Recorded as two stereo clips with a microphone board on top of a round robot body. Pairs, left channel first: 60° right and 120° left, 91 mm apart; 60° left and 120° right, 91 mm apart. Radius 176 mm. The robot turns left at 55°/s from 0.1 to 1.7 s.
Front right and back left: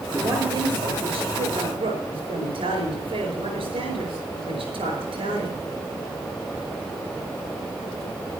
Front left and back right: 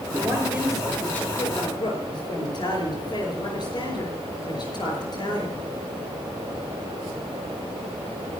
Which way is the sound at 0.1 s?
170° right.